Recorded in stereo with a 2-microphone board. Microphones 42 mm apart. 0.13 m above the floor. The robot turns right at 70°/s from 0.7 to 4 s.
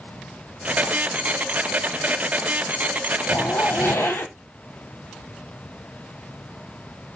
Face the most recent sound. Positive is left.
turn(degrees=100)